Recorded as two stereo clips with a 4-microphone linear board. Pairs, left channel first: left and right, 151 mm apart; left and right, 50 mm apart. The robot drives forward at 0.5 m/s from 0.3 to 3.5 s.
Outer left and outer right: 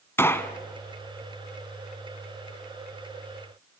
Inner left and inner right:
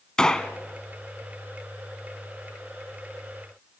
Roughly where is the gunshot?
Centre.